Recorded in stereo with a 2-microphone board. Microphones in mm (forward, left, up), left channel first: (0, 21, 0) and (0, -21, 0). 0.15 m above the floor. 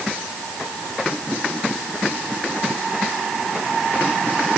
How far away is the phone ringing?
No phone ringing in this recording.